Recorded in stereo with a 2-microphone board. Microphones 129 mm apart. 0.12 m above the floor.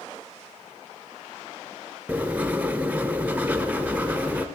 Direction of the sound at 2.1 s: 10° right (ahead or behind).